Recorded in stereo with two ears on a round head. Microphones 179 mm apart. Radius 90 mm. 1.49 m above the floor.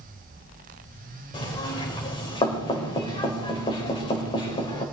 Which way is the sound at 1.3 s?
25° left (ahead or behind).